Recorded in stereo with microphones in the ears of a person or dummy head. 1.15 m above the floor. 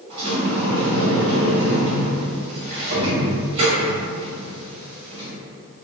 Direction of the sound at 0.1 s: 35° right (ahead or behind).